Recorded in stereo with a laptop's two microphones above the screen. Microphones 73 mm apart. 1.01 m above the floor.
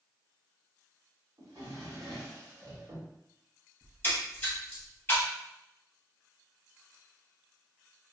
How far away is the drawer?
About 1.3 m.